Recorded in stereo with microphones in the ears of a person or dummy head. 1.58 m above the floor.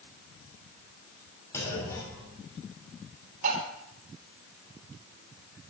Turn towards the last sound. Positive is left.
turn(degrees=-45)  # may be behind; listen again after turning